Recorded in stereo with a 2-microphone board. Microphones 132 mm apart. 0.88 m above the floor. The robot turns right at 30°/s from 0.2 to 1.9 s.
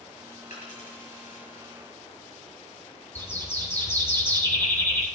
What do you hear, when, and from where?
0.5 s a dropped coin: 70° left (ahead or behind), 6.5 m; by 1.4 s 80° left, 6.5 m
3.1 s a bird: 15° left (ahead or behind), 2.5 m